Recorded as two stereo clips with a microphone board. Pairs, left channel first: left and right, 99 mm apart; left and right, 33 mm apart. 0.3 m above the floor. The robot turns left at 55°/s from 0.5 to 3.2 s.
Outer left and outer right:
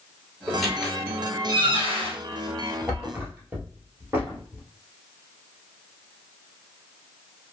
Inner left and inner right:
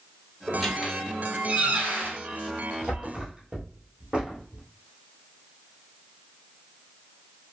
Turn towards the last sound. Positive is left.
turn(degrees=-20)  # may be behind; listen again after turning